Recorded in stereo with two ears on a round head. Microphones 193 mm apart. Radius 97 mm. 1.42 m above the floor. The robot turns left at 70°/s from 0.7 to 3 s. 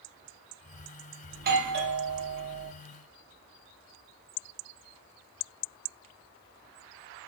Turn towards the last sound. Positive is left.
turn(degrees=-175)